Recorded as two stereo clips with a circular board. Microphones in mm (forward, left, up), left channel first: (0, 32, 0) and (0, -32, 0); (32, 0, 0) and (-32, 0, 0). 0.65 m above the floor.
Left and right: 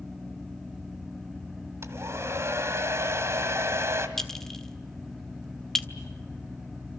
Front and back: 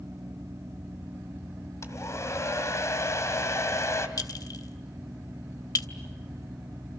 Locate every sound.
1.8 s a hair dryer: 45° right, 2 m
4.2 s a clink: 10° left, 1.4 m